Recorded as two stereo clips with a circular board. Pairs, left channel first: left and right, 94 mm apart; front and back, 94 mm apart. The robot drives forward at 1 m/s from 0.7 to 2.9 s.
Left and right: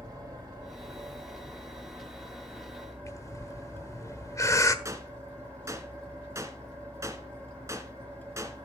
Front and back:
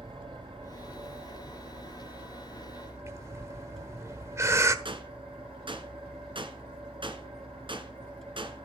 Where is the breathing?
130° left, 1.3 m.